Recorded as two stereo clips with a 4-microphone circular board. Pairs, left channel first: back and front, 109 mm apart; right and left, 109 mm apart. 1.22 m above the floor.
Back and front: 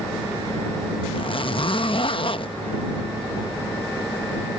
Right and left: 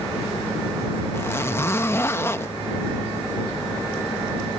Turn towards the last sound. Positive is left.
turn(degrees=-155)